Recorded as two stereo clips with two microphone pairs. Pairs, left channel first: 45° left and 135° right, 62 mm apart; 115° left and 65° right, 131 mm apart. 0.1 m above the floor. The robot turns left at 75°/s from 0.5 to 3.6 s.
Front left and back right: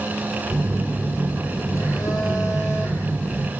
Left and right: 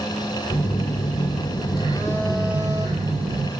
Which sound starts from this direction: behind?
A phone buzzing, at 0.5 s.